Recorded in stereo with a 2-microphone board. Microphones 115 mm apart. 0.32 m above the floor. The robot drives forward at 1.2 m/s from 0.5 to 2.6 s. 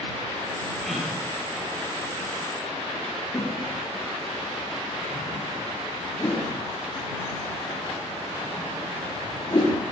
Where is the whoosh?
35° left (ahead or behind), 6.5 m.